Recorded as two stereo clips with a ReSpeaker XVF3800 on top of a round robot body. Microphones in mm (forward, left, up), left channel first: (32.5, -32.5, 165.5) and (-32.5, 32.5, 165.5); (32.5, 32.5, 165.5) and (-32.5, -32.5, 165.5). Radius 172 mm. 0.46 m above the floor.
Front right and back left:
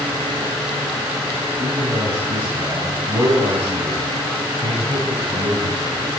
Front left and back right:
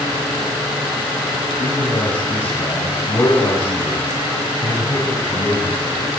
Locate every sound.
1.6 s a man speaking: 90° left, 4 m